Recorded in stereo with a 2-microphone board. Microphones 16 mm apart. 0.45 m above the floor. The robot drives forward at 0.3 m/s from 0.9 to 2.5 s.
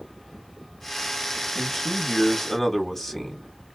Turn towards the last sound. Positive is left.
turn(degrees=20)  # may be behind; listen again after turning